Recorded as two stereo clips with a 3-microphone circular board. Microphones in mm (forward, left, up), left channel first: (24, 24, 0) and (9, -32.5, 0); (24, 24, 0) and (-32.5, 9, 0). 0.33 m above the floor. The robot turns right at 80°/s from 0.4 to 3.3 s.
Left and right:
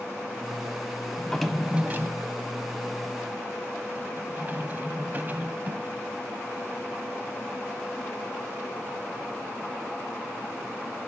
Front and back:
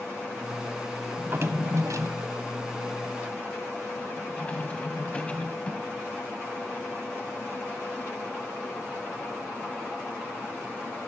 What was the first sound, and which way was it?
A drawer, 140° left.